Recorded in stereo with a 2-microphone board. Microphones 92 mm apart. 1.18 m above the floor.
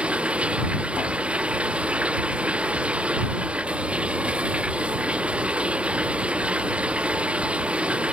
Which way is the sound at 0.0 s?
10° right (ahead or behind).